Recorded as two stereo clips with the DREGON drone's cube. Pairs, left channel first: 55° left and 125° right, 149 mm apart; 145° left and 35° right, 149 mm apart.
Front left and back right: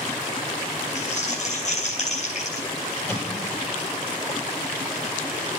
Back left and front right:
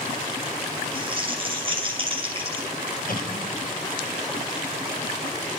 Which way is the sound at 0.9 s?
20° left.